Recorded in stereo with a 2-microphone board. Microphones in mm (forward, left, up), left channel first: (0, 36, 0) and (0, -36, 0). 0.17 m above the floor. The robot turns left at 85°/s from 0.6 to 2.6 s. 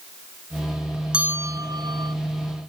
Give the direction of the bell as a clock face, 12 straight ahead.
12 o'clock.